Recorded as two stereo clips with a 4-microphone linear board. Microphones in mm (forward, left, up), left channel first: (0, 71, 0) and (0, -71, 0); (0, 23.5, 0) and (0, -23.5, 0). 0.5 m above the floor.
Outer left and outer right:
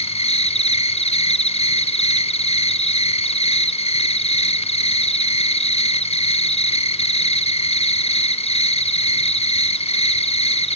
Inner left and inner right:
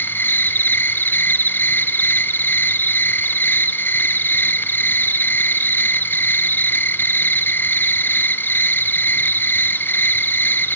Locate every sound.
0.0 s an insect: 45° left (ahead or behind), 1.2 m